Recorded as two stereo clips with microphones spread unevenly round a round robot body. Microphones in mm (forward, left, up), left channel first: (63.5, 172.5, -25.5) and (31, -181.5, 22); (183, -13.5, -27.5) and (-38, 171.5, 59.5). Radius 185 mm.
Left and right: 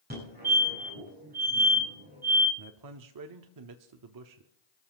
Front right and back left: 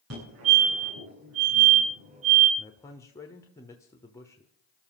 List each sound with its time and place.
0.1 s a fire alarm: 165° right, 9.5 m
2.6 s a man speaking: 95° right, 1.0 m